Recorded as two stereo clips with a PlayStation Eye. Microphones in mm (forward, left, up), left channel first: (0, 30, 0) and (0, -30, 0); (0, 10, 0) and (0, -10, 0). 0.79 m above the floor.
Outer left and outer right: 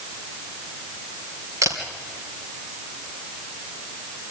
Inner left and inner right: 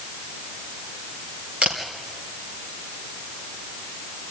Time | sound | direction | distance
1.6 | a camera shutter | 70° right (ahead or behind) | 3 m